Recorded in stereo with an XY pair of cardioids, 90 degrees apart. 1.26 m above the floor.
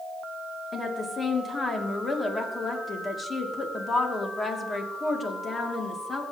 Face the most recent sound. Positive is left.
turn(degrees=35)